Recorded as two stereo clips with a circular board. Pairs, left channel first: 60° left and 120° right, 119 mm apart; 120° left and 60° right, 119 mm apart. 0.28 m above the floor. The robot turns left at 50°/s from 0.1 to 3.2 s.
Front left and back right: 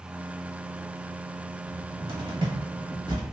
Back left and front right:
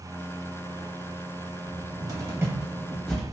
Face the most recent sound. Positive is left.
turn(degrees=-160)